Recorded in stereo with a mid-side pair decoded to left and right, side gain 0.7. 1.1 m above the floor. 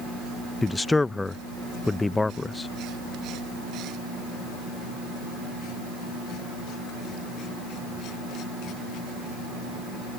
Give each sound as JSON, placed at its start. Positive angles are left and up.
{"t": 0.6, "sound": "a man speaking", "azimuth_deg": 15}